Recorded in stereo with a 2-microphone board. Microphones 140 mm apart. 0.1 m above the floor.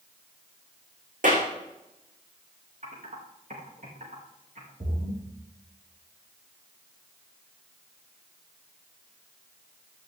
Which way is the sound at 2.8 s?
65° right (ahead or behind).